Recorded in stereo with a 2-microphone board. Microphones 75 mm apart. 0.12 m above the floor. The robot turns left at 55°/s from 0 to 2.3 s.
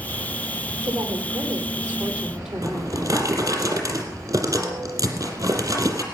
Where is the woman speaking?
90° right, 4.5 m; by 3.6 s 170° right, 4.5 m.